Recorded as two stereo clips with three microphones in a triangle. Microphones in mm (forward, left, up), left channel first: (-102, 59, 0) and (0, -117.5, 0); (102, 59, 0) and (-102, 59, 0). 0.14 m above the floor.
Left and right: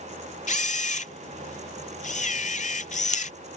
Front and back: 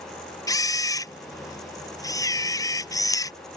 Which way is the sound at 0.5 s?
75° left.